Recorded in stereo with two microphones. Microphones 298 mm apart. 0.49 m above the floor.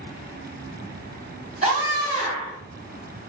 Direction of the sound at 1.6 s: 25° right (ahead or behind).